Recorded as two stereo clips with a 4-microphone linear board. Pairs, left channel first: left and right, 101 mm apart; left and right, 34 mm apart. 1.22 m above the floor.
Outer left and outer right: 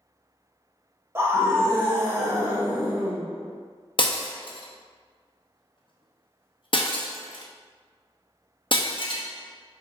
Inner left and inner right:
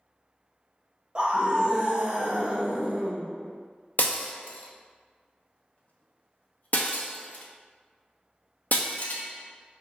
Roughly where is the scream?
Right.